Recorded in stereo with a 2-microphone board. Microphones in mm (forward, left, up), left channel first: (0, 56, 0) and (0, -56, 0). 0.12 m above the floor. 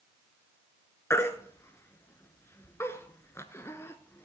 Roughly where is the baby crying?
Left.